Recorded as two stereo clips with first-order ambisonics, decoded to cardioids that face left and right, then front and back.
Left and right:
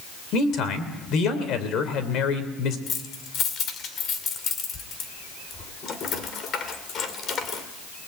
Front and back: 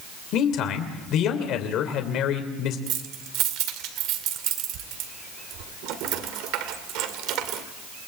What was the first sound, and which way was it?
A man speaking, 45° left.